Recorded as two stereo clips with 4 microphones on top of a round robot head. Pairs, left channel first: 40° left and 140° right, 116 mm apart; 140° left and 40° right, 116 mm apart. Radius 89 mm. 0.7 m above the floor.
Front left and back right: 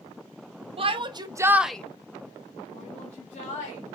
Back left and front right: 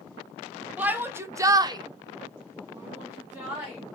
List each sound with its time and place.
0.8 s a shout: 115° right, 1.0 m; by 3.8 s 35° left, 1.9 m